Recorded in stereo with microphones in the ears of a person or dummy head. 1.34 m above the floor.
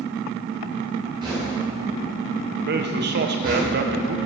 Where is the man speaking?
45° right (ahead or behind), 1.1 m.